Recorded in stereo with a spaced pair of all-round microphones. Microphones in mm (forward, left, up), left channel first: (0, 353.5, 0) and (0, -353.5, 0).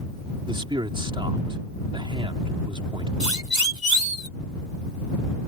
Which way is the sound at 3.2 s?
85° right.